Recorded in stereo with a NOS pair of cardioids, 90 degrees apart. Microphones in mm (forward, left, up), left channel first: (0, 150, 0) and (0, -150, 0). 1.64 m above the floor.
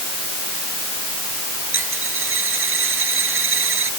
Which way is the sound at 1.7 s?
45° right.